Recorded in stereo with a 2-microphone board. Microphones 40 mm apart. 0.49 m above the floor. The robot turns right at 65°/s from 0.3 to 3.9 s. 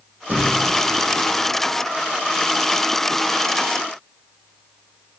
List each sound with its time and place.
0.3 s a thud: 50° right (ahead or behind), 3.5 m; by 0.7 s 25° right (ahead or behind), 3.5 m